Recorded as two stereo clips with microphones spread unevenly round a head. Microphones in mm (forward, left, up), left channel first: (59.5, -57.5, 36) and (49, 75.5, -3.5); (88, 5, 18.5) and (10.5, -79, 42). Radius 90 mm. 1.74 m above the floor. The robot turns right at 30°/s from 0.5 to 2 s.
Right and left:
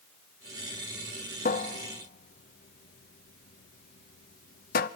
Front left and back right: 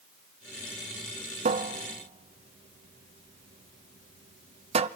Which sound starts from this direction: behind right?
A cupboard door, at 1.4 s.